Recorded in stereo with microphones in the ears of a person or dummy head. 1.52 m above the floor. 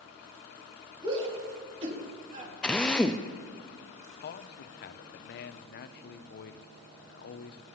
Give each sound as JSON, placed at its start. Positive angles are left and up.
{"t": 1.0, "sound": "a shout", "side_deg": -30, "distance_m": 4.0}
{"t": 2.6, "sound": "a drill", "side_deg": 5, "distance_m": 0.5}
{"t": 4.2, "sound": "a man speaking", "side_deg": 60, "distance_m": 0.9}